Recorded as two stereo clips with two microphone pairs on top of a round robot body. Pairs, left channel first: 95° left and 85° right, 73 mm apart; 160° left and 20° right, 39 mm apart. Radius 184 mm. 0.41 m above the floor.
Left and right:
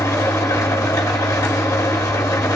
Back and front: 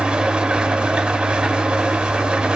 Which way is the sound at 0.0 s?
50° left.